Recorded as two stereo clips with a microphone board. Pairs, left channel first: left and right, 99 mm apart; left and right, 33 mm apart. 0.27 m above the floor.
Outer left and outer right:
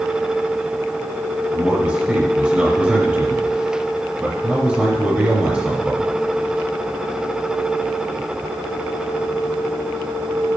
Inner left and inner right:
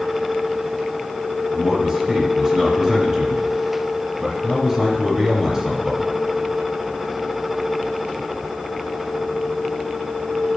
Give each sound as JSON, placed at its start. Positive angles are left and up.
{"t": 1.5, "sound": "a man speaking", "side_deg": -20, "distance_m": 2.5}